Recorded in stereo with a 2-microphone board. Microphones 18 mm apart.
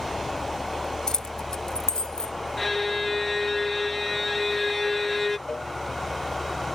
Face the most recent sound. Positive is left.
turn(degrees=35)  # may be behind; listen again after turning